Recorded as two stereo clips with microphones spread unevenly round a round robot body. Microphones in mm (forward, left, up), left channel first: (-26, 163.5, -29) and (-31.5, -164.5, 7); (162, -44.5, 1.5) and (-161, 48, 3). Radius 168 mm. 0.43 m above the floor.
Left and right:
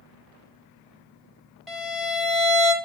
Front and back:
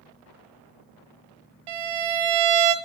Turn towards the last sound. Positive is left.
turn(degrees=180)